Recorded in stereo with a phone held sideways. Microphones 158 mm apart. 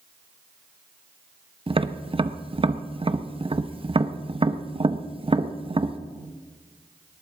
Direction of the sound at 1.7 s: 35° right (ahead or behind).